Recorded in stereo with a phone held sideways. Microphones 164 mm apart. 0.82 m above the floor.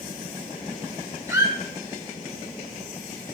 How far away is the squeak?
About 1.3 m.